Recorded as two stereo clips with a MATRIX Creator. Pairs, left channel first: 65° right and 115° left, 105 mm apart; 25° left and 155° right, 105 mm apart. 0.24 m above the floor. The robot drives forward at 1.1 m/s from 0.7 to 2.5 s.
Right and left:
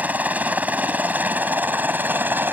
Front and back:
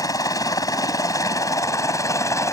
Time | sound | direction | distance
0.0 | a helicopter | 45° left | ?